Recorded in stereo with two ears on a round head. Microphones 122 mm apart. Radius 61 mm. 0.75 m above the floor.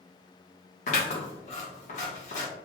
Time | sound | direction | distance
0.9 | scissors | 55° left (ahead or behind) | 1.4 m